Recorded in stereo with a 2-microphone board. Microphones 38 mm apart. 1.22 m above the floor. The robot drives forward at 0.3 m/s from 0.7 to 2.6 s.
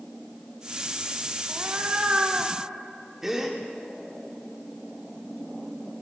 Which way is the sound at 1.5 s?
45° right (ahead or behind).